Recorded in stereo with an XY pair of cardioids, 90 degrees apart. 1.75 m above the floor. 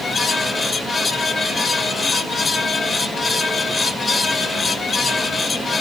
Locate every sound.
0.0 s a fan: 50° left, 1.5 m